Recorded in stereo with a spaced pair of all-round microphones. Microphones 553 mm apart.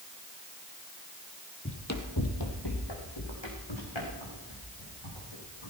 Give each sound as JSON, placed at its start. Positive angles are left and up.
{"t": 1.6, "sound": "running footsteps", "side_deg": 20, "distance_m": 1.7}